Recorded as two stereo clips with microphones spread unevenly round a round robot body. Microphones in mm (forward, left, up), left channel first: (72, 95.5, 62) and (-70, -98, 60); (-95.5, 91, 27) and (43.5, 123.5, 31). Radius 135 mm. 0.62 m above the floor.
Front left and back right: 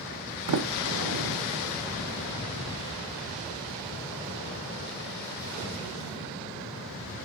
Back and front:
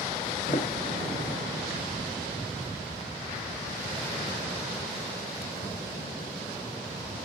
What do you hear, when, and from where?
0.5 s a sliding door: 100° right, 0.8 m